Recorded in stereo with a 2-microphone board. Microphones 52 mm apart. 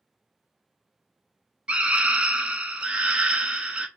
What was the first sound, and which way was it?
A scream, 25° right (ahead or behind).